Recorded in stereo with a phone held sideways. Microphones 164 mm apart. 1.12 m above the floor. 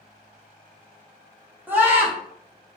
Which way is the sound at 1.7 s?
10° right (ahead or behind).